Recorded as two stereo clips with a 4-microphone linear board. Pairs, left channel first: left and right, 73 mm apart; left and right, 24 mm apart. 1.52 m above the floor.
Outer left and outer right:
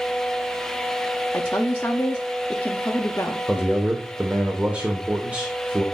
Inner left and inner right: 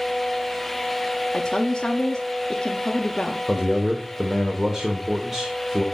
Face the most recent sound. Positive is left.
turn(degrees=-20)  # may be behind; listen again after turning